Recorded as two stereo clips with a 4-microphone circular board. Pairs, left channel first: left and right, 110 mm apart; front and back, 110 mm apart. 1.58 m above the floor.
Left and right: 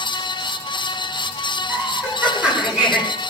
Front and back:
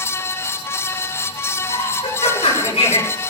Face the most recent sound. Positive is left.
turn(degrees=-10)